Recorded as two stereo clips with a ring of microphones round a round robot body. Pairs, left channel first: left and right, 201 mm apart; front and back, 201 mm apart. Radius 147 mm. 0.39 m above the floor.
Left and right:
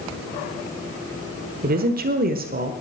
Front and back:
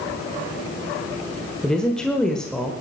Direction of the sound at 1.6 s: 85° right.